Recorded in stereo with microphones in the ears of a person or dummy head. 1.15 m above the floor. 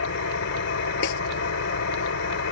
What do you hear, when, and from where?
0.0 s an engine running: 65° left (ahead or behind)
1.0 s a snare drum: 70° left (ahead or behind)